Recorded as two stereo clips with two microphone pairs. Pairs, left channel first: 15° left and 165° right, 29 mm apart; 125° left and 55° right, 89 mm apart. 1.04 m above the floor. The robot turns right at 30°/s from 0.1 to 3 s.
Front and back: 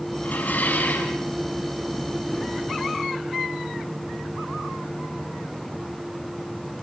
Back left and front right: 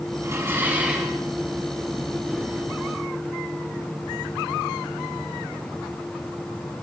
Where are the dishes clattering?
Straight ahead, 5.5 m; by 1.2 s 30° left, 5.5 m.